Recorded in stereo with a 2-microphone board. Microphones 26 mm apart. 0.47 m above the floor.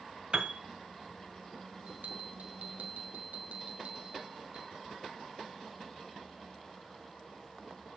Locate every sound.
0.3 s a piano: 45° right (ahead or behind), 1.5 m
1.9 s a bell: 70° right (ahead or behind), 2.5 m